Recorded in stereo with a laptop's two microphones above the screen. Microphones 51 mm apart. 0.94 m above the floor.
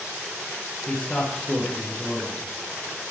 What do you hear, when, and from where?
0.9 s a man speaking: 20° left (ahead or behind), 0.6 m